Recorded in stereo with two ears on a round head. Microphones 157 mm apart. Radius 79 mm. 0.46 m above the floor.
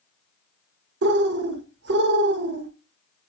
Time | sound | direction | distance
1.0 | a bird | 70° right (ahead or behind) | 0.9 m